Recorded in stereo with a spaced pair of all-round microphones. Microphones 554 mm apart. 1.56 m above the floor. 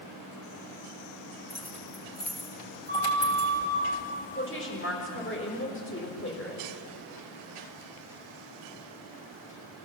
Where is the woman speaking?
25° left (ahead or behind), 4.5 m.